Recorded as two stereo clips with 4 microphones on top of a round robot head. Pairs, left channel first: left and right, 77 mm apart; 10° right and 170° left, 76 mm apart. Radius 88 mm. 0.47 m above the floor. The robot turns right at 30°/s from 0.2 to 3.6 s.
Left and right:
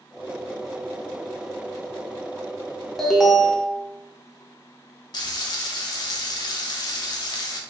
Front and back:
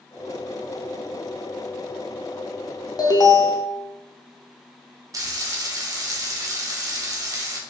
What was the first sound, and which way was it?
An alarm, 5° left.